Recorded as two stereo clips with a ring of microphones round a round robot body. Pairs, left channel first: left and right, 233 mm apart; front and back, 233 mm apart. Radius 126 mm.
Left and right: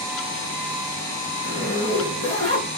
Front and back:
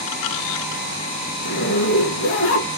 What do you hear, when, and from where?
1.4 s a zipper: 30° left, 1.4 m